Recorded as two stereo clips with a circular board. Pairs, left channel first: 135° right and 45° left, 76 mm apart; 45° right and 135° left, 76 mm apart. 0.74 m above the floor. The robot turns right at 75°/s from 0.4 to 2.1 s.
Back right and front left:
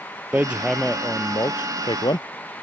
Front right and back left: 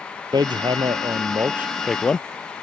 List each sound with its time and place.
0.3 s hammering: 115° left; by 2.2 s 120° right